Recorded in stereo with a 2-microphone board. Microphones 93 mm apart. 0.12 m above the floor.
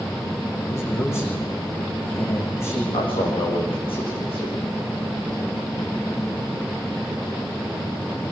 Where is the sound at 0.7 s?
30° left (ahead or behind), 8 m.